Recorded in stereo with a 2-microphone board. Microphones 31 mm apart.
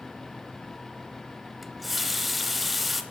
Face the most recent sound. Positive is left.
turn(degrees=-5)  # may be behind; listen again after turning